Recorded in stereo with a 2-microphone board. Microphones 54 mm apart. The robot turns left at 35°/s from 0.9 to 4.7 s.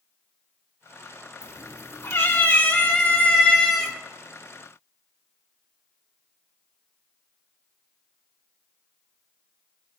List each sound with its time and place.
1.4 s a cat meowing: 85° left, 3 m; by 3.9 s straight ahead, 3 m